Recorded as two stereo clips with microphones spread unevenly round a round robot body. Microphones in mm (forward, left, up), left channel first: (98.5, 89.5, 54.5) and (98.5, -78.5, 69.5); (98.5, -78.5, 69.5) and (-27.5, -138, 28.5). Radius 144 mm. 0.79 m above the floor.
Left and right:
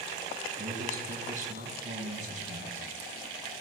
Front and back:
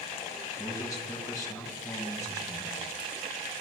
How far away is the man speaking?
About 6 m.